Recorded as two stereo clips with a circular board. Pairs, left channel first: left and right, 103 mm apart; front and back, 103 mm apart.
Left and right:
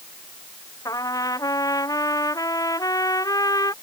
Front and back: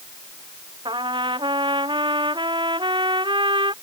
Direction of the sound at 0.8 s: 145° left.